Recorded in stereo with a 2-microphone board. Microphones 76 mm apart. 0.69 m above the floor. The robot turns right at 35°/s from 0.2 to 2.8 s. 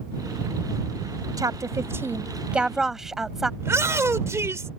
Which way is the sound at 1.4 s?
55° right (ahead or behind).